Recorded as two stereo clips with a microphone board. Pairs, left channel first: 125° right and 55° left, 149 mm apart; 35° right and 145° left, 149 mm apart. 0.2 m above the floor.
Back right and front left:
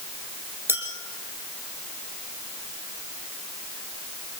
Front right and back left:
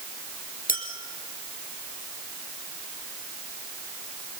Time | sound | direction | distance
0.7 | a clink | 20° right | 3.5 m